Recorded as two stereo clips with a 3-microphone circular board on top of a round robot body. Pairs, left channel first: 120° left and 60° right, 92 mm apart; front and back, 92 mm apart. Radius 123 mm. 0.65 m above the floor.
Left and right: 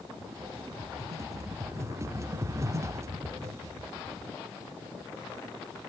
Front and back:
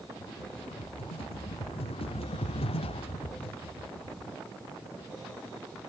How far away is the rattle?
About 0.9 m.